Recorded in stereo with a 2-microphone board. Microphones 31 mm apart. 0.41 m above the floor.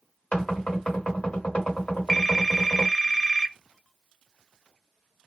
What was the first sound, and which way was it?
Knocking, 50° left (ahead or behind).